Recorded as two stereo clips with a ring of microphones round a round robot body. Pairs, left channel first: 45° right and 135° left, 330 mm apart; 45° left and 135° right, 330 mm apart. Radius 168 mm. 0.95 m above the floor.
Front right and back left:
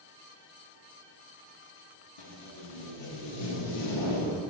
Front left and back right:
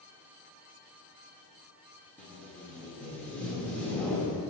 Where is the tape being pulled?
40° right, 1.0 m.